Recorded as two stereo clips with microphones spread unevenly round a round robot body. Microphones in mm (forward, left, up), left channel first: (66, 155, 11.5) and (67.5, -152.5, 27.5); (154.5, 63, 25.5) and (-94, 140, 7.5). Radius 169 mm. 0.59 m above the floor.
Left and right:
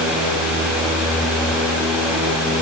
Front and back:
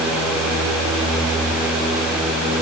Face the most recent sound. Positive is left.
No sound to turn to.